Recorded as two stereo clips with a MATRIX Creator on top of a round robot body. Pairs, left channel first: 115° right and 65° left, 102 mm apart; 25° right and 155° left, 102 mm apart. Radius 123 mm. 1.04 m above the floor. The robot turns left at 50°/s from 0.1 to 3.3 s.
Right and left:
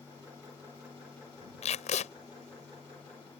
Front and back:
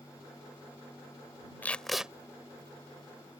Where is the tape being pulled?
95° right; by 2.1 s 120° right.